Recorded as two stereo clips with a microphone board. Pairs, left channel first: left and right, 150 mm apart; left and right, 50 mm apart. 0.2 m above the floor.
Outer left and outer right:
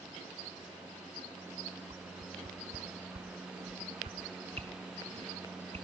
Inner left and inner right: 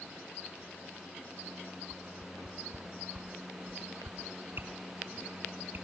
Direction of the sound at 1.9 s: 45° right (ahead or behind).